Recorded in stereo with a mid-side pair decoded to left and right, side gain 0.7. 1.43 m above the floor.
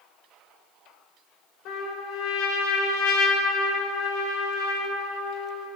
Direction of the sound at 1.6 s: 60° left.